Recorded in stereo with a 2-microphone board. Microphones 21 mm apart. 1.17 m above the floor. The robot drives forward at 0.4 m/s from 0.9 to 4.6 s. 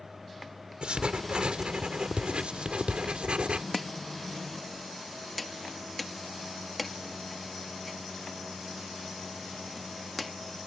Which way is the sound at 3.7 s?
5° left (ahead or behind).